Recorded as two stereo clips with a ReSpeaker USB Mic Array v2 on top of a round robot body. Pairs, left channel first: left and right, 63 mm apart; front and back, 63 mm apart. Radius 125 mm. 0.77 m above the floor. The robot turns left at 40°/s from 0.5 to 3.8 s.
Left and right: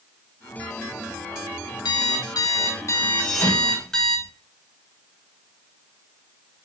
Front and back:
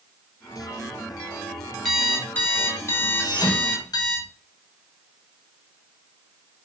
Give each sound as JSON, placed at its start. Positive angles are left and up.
{"t": 1.9, "sound": "an alarm clock", "azimuth_deg": 85, "distance_m": 3.0}
{"t": 3.2, "sound": "a thud", "azimuth_deg": 15, "distance_m": 4.5}